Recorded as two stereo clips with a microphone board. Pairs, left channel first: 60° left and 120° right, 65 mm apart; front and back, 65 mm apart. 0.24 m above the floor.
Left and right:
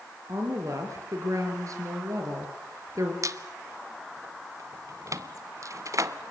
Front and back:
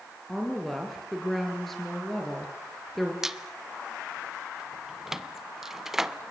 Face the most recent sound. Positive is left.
turn(degrees=-95)